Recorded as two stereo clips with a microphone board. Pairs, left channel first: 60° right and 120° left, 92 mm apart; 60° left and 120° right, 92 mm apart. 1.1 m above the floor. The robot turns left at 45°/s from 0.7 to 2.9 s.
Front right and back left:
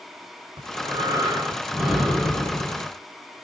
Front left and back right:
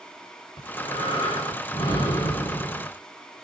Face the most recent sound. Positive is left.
turn(degrees=-10)